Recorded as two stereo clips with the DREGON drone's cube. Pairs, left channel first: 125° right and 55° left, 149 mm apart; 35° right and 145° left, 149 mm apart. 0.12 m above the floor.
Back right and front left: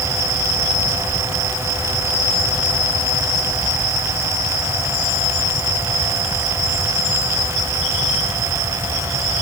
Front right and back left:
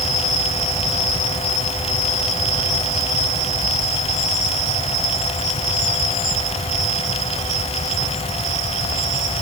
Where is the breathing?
I don't hear breathing.